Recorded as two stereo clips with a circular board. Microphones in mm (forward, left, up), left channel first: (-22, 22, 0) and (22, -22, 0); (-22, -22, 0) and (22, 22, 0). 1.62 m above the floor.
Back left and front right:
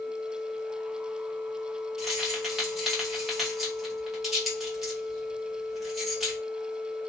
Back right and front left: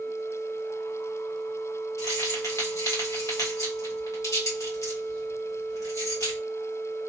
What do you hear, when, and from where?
2.0 s keys jangling: 130° right, 1.3 m